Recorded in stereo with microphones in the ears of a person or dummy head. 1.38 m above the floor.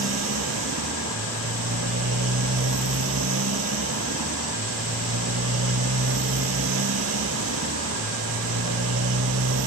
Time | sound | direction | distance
0.0 | a motorcycle | 75° right (ahead or behind) | ?